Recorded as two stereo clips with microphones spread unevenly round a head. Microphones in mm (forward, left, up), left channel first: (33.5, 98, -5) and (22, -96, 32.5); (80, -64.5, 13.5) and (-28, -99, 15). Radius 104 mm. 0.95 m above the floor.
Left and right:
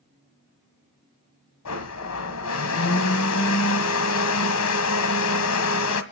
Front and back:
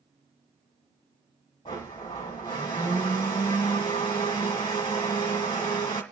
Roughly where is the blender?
Left.